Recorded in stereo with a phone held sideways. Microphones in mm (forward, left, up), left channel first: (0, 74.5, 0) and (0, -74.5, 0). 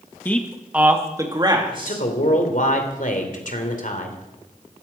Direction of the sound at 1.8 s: 60° left (ahead or behind).